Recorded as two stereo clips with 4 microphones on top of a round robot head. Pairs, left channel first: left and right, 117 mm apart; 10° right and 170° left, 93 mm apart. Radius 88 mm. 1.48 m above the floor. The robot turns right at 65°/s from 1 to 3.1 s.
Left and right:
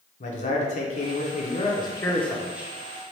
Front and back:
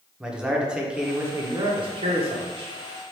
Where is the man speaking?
85° left, 1.0 m; by 2.7 s 160° right, 1.0 m.